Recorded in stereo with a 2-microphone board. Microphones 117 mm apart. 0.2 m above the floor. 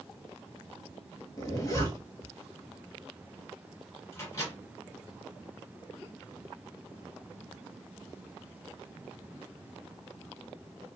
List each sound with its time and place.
1.4 s a zipper: 30° left (ahead or behind), 0.9 m
4.1 s a microwave: 30° left (ahead or behind), 1.8 m